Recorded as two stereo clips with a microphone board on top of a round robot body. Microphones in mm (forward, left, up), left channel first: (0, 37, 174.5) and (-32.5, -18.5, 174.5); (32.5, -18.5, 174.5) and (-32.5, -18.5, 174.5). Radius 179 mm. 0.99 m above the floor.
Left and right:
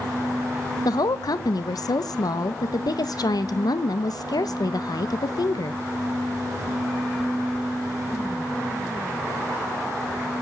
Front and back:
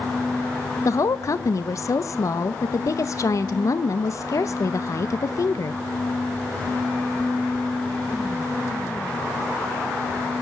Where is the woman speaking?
40° left, 0.9 m.